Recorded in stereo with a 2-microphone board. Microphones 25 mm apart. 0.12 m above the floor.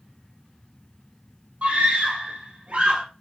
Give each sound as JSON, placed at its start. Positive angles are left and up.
{"t": 1.6, "sound": "a scream", "side_deg": -70, "distance_m": 3.0}